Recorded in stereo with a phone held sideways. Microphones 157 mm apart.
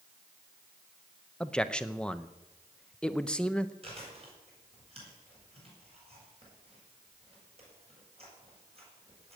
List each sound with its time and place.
1.4 s a man speaking: 5° left (ahead or behind), 0.8 m
3.8 s chewing: 40° right (ahead or behind), 7 m